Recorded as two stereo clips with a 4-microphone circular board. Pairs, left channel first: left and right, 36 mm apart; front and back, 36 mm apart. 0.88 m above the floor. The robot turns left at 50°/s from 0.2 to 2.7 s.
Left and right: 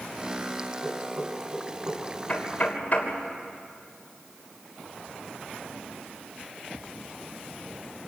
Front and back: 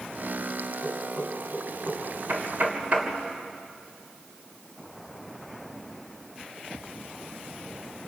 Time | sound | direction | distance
0.8 | knocking | 50° right | 6 m
2.3 | knocking | 155° left | 3 m